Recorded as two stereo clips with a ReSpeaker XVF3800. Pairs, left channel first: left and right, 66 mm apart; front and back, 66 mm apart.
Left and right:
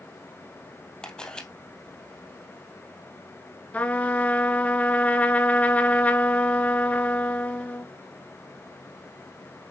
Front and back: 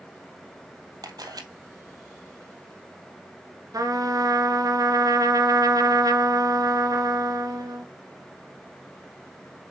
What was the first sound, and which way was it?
A camera shutter, 170° left.